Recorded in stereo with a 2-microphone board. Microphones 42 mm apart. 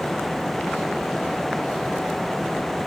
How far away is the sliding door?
I don't hear a sliding door.